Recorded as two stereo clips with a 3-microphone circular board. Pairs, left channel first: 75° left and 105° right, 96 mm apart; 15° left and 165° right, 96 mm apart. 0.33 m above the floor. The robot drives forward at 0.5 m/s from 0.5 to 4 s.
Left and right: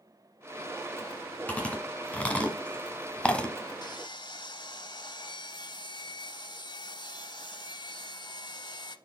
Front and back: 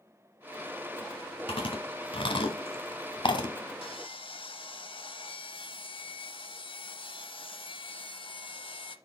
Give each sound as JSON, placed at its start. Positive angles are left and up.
{"t": 1.5, "sound": "chewing", "azimuth_deg": 0, "distance_m": 1.9}
{"t": 3.8, "sound": "sawing", "azimuth_deg": 30, "distance_m": 0.7}